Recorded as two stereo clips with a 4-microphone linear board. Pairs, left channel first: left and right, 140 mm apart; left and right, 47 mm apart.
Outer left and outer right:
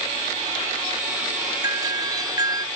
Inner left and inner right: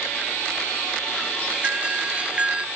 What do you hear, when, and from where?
1.6 s a doorbell: 25° right (ahead or behind)